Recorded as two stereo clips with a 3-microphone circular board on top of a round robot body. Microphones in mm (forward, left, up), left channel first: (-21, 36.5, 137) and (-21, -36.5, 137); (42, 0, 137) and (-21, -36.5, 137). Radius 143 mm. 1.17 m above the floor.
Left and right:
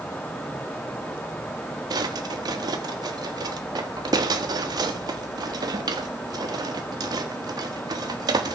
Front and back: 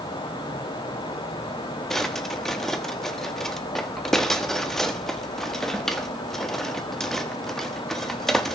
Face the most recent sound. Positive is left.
turn(degrees=-55)